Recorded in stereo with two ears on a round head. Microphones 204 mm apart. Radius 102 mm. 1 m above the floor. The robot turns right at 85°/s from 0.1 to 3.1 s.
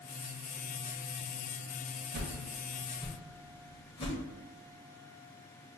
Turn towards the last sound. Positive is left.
turn(degrees=20)  # may be behind; listen again after turning